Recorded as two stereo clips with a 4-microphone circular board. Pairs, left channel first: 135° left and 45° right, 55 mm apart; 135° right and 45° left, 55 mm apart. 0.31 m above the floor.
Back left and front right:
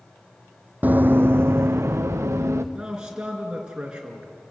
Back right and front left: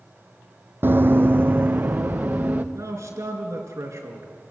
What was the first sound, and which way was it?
Running footsteps, 5° left.